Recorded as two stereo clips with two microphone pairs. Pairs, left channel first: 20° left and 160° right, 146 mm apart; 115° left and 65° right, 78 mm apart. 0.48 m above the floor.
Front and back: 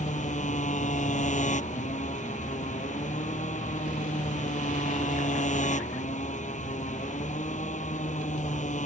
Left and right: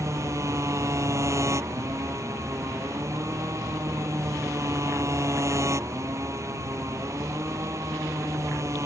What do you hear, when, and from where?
0.0 s a motorcycle: 15° right